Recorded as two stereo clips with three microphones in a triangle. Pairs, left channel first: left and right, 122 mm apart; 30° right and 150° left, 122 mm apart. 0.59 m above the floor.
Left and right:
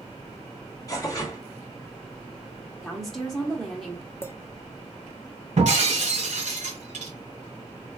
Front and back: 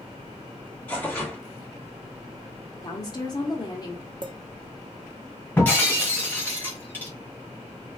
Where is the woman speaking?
Straight ahead, 0.9 m.